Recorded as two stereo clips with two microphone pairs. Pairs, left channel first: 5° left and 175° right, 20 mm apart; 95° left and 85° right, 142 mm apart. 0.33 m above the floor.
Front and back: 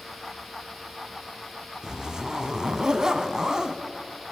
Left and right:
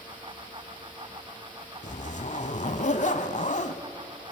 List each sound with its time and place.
1.8 s a zipper: 125° left, 0.8 m